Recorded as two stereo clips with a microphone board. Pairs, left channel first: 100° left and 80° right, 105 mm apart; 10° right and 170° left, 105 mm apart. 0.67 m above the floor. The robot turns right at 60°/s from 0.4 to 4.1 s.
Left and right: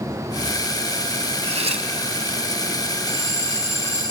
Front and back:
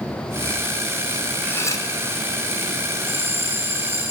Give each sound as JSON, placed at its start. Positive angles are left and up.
{"t": 1.4, "sound": "cutlery clinking", "azimuth_deg": -85, "distance_m": 2.5}
{"t": 3.1, "sound": "a bell", "azimuth_deg": 150, "distance_m": 4.0}